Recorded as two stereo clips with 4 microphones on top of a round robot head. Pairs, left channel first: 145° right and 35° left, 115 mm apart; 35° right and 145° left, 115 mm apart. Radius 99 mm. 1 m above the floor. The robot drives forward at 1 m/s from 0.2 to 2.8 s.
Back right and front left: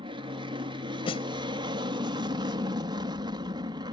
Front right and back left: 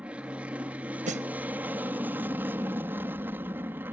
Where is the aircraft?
70° left; by 3.9 s 75° left.